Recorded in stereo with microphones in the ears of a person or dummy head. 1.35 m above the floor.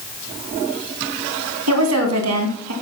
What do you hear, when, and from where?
1.7 s a woman speaking: 85° right, 2.5 m